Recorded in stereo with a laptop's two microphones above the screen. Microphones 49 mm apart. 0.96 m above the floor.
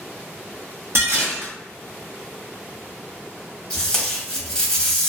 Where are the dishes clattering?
55° right (ahead or behind), 0.9 m.